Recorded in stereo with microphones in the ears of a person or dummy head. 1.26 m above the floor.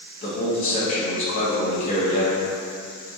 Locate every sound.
0.2 s a man speaking: 45° left (ahead or behind), 1.3 m